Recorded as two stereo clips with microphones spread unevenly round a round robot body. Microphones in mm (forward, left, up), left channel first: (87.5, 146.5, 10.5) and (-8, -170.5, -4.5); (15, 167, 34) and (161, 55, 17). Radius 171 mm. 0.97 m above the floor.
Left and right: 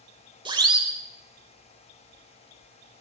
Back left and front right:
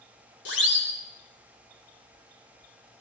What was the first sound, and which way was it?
A siren, 175° left.